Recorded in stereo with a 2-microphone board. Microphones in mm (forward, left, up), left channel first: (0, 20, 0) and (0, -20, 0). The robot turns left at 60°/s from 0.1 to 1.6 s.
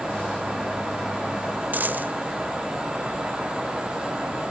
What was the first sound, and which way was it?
A dropped coin, 45° right (ahead or behind).